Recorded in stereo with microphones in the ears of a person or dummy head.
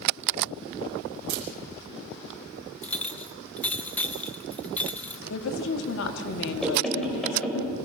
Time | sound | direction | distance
1.3 | a camera shutter | 60° right (ahead or behind) | 3 m
2.8 | a clink | 10° left (ahead or behind) | 0.8 m
5.3 | a woman speaking | 75° left (ahead or behind) | 1.9 m
6.6 | knocking | 5° left (ahead or behind) | 4.5 m